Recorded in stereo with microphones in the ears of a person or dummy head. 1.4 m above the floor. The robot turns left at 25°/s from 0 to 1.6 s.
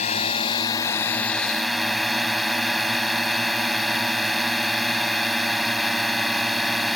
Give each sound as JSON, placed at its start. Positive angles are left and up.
{"t": 0.0, "sound": "a drone", "azimuth_deg": 40}